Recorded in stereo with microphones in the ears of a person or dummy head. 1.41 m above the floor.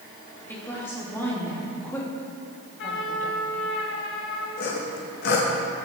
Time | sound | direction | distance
0.5 | a woman speaking | 20° left (ahead or behind) | 3 m
2.8 | a trumpet | 65° left (ahead or behind) | 3 m
4.6 | sawing | 65° left (ahead or behind) | 2 m